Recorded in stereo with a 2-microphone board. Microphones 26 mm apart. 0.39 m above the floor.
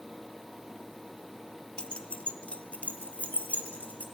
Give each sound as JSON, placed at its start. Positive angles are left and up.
{"t": 1.8, "sound": "keys jangling", "side_deg": 40, "distance_m": 0.8}